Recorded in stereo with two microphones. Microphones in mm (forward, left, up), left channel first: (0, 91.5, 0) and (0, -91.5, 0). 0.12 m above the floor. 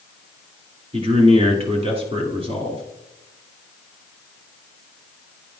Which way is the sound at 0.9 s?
35° right (ahead or behind).